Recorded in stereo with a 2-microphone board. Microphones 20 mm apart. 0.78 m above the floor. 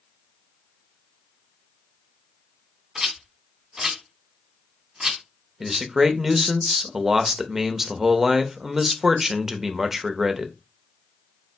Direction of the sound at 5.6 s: 20° right (ahead or behind).